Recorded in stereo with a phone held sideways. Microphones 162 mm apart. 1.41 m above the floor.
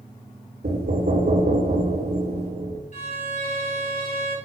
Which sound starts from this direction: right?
Knocking, at 0.6 s.